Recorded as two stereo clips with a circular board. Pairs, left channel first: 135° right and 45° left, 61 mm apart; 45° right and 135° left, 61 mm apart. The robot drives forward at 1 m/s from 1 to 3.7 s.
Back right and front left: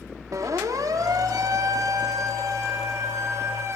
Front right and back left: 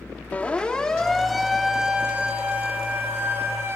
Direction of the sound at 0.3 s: 20° left.